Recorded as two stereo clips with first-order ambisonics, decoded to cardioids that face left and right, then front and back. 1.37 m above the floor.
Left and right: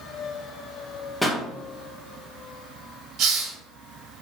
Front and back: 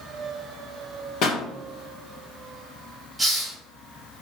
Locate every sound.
1.2 s a pop: 10° left, 0.9 m
3.2 s a hiss: 95° right, 1.1 m